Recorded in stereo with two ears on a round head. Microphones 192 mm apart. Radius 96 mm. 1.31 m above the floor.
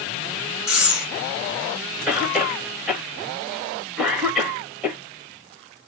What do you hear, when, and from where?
0.7 s breathing: 5° right (ahead or behind), 2.5 m
2.1 s a cough: centre (ahead or behind), 2 m